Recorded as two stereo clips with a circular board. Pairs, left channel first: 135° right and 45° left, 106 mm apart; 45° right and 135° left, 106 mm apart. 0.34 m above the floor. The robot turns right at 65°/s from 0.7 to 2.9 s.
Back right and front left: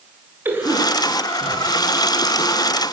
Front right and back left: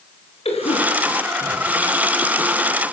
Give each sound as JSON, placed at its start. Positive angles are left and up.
{"t": 0.5, "sound": "a cough", "azimuth_deg": -25, "distance_m": 5.0}